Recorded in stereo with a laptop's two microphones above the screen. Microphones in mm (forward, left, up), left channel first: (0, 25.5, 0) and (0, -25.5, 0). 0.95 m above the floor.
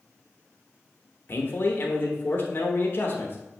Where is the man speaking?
45° left (ahead or behind), 0.8 m.